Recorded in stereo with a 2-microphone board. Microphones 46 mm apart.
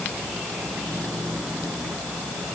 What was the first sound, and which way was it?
Only background noise.